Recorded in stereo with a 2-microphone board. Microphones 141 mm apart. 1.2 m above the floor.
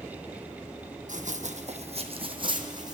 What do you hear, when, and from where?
1.1 s running footsteps: 60° right (ahead or behind), 2.5 m; by 3.0 s 30° right (ahead or behind), 3.5 m